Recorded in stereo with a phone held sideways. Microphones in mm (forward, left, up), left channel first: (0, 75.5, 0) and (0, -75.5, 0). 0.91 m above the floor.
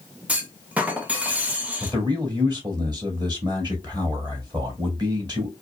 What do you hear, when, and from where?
0.3 s a clunk: 10° right (ahead or behind), 0.9 m
1.8 s a man speaking: 25° right (ahead or behind), 1.9 m